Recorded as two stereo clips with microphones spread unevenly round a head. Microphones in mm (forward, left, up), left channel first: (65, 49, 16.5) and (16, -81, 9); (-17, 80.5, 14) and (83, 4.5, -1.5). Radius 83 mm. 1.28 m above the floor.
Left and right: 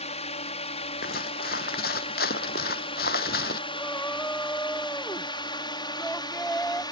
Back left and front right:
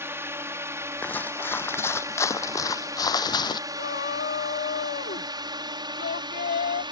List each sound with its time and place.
0.0 s a drone: 30° left; by 6.9 s 10° left
1.0 s footsteps: 70° left; by 3.6 s 95° left
3.7 s a shout: 155° left